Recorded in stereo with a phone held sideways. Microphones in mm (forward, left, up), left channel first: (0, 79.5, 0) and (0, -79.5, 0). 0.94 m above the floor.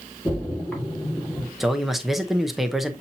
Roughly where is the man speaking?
Centre.